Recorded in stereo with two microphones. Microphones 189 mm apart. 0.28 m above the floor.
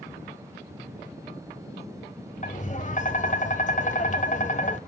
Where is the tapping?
40° left (ahead or behind), 0.9 m.